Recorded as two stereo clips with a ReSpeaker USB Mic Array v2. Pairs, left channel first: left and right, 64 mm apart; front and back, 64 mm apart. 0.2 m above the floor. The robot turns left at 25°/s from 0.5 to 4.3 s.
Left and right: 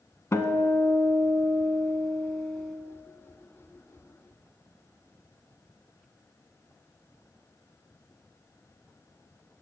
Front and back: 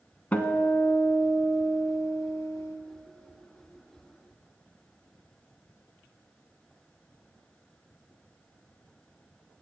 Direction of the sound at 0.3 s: 60° left.